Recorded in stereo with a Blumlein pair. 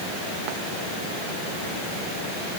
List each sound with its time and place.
Only background noise.